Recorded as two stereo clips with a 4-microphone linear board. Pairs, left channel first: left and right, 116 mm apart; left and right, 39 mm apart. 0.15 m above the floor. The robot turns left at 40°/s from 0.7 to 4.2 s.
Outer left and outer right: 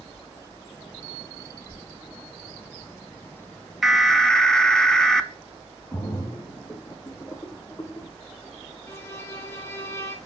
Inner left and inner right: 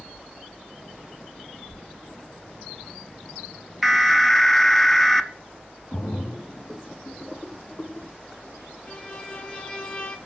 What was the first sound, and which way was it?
An alarm, centre (ahead or behind).